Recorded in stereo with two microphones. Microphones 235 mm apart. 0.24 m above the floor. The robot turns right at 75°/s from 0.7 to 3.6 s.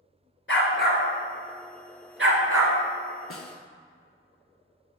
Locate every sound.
0.5 s a dog barking: 55° left (ahead or behind), 1.0 m; by 2.8 s 80° right, 1.0 m
3.3 s a snare drum: 65° left (ahead or behind), 0.5 m; by 3.6 s 85° left, 0.5 m